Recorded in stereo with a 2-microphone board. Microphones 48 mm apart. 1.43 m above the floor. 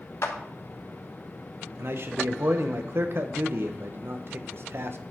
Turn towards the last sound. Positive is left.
turn(degrees=-55)  # may be behind; listen again after turning